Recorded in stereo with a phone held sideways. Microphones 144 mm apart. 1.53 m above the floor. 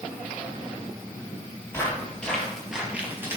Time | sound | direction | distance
1.7 | footsteps | 15° left (ahead or behind) | 2.5 m